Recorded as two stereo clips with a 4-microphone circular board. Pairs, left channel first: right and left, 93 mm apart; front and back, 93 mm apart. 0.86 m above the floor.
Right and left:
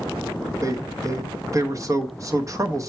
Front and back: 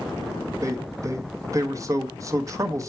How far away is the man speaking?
About 1.0 m.